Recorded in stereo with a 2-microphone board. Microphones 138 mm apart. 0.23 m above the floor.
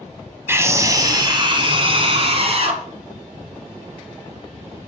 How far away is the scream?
About 1.1 m.